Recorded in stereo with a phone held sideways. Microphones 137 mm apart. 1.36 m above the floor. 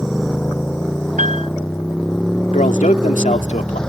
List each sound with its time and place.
0.0 s a motorcycle: 5° left (ahead or behind)
1.2 s a piano: 70° right (ahead or behind)
2.5 s a man speaking: 70° left (ahead or behind)